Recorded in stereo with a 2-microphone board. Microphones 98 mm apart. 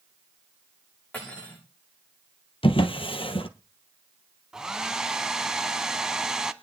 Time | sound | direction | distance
1.1 | cutlery clinking | 15° left (ahead or behind) | 8.5 m
2.6 | a drawer | 70° left (ahead or behind) | 1.0 m
4.5 | a hair dryer | 5° right (ahead or behind) | 0.7 m